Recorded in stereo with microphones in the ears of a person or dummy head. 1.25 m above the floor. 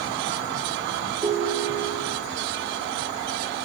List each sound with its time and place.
1.2 s a ringtone: 5° right (ahead or behind), 0.9 m